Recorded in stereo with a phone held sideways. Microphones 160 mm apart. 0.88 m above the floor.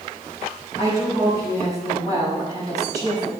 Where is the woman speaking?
25° right (ahead or behind), 5 m.